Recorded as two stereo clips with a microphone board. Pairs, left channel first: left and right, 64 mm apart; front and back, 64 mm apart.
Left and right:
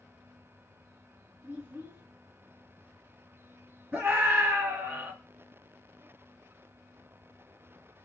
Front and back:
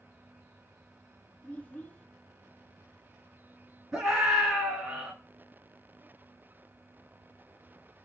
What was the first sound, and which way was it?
A child speaking, 55° right.